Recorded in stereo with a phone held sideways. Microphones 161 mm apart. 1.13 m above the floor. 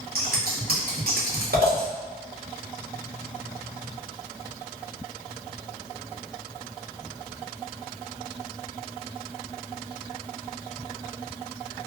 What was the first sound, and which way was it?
Scissors, 70° right (ahead or behind).